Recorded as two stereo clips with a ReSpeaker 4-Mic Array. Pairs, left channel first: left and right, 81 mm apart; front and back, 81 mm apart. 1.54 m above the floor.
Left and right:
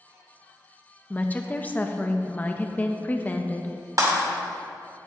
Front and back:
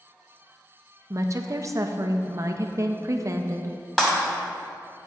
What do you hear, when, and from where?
1.1 s a woman speaking: 150° left, 0.6 m
4.0 s breaking glass: 85° right, 2 m